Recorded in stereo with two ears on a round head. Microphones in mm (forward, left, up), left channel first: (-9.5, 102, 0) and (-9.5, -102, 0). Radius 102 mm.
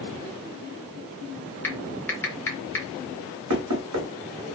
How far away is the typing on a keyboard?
About 0.7 m.